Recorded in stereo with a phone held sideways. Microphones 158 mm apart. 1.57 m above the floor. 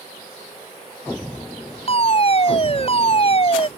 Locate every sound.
1.9 s a fire alarm: 40° left (ahead or behind)